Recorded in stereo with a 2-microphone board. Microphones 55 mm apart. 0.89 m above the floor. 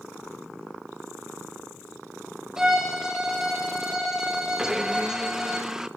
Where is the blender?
10° right (ahead or behind), 1.1 m.